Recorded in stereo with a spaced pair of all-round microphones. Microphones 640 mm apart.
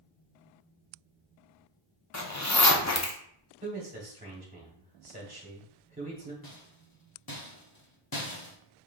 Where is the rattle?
35° left (ahead or behind), 0.9 m.